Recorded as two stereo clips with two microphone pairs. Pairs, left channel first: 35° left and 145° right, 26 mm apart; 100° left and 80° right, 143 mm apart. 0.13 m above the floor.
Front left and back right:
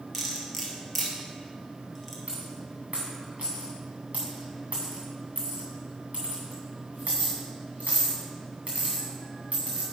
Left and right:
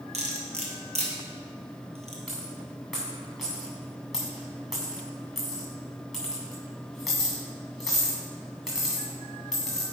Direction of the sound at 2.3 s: 170° right.